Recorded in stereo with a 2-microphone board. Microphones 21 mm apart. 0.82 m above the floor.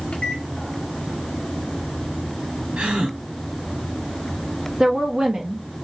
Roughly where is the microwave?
Left.